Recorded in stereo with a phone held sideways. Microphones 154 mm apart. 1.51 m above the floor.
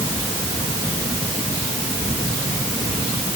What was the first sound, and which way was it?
Only background noise.